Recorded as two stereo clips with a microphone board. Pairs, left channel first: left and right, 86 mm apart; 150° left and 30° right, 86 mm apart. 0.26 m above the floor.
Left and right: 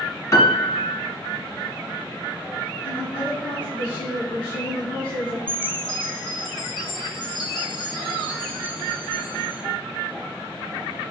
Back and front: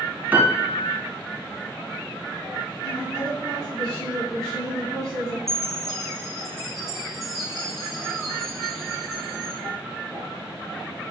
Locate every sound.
0.3 s a piano: 40° left, 2.5 m
2.8 s a woman speaking: 65° left, 3.5 m
5.5 s a chime: 60° left, 3 m